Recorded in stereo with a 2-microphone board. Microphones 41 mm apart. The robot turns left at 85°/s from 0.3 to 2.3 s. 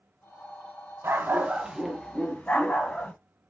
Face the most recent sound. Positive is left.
turn(degrees=145)